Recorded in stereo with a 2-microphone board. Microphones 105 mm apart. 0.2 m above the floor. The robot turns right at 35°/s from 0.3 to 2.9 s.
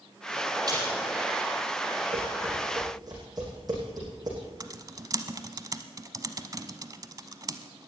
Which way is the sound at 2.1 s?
65° right (ahead or behind).